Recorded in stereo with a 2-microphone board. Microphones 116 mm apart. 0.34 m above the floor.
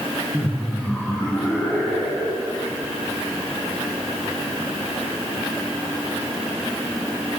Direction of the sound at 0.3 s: 5° left (ahead or behind).